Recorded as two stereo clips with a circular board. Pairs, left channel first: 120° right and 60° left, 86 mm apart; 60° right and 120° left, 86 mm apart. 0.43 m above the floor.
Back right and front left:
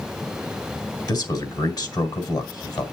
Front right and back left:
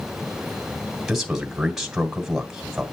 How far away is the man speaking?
About 2.5 m.